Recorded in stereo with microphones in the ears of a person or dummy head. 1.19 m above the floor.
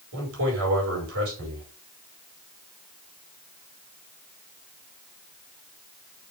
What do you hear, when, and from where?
0.1 s a man speaking: 70° right (ahead or behind), 5 m